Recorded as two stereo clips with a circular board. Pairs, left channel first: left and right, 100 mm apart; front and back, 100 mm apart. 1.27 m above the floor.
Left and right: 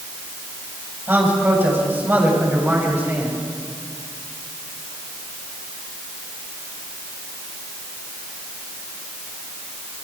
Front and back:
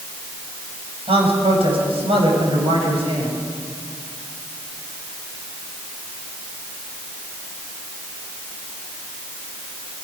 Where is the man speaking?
160° right, 7.5 m.